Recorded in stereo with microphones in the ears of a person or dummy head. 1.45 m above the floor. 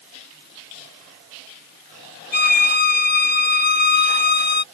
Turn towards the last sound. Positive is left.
turn(degrees=50)  # may be behind; listen again after turning